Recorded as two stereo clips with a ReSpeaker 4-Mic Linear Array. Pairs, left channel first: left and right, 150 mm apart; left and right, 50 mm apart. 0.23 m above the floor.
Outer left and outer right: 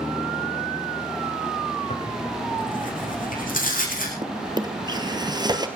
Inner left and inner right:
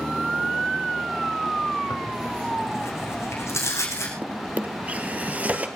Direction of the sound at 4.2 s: 30° right (ahead or behind).